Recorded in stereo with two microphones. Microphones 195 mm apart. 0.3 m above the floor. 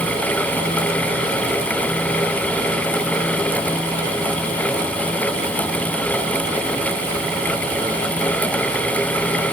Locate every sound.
Only background noise.